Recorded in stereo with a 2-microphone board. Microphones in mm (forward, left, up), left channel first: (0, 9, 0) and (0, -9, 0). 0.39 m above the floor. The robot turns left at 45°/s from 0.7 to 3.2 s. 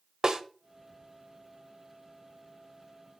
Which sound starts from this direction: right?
A snare drum, at 0.2 s.